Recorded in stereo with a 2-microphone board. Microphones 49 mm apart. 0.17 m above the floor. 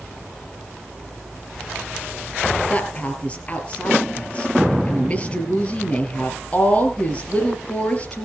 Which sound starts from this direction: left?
A woman speaking, at 2.7 s.